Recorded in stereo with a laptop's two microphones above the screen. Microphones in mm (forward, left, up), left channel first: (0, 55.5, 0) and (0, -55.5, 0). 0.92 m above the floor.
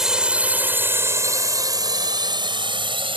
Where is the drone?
5° right (ahead or behind); by 3.2 s 55° right (ahead or behind).